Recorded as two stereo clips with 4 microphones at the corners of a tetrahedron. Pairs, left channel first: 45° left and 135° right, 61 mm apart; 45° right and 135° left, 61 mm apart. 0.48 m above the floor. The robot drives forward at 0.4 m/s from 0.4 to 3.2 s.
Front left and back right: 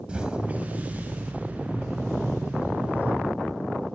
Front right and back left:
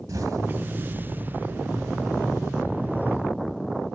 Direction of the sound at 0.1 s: 155° left.